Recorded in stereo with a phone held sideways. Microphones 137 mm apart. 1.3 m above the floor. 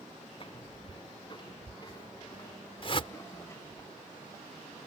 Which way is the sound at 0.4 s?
40° left (ahead or behind).